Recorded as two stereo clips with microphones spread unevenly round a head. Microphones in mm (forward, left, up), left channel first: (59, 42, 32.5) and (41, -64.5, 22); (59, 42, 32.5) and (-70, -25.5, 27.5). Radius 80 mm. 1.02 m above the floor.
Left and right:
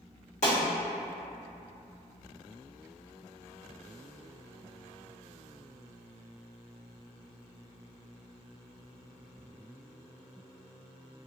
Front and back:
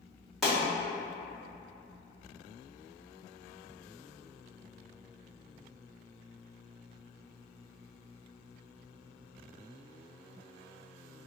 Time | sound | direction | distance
0.4 | a pop | 115° left | 1.4 m